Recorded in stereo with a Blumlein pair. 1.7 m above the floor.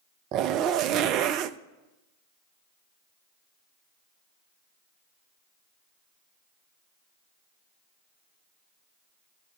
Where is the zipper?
35° right, 0.6 m.